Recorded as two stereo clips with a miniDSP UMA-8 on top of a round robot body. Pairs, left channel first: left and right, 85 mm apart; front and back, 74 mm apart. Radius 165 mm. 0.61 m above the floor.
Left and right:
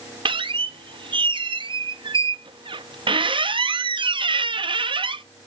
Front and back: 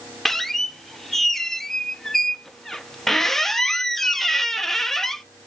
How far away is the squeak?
About 0.8 m.